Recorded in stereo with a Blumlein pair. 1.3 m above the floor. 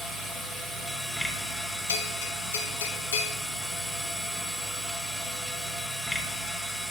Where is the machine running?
10° left, 1.3 m.